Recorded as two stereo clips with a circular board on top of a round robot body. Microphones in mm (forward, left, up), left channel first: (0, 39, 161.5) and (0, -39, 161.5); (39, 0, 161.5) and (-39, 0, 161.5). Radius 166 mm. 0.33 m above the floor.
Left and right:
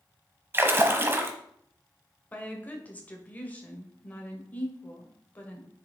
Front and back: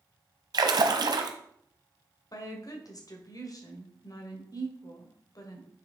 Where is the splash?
150° right, 0.8 m.